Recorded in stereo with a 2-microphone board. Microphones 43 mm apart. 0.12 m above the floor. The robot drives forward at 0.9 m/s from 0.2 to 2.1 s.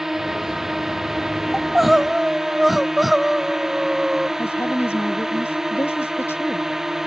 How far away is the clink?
No clink in this recording.